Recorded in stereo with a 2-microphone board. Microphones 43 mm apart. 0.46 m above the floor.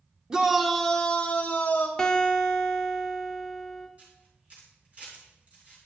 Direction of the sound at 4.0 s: 35° right (ahead or behind).